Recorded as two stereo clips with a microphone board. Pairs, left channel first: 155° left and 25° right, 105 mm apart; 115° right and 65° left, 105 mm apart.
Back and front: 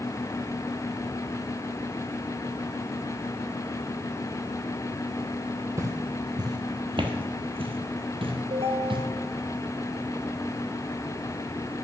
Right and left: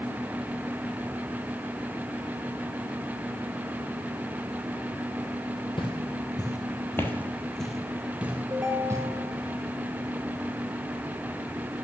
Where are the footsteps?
80° right, 1.4 m; by 9.0 s 10° left, 1.5 m.